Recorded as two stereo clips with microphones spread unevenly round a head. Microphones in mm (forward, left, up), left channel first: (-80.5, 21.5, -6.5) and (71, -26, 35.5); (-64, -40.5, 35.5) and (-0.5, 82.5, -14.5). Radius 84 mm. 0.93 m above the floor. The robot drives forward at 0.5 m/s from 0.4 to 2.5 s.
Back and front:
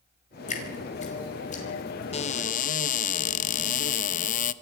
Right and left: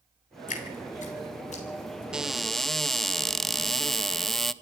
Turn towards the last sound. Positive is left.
turn(degrees=145)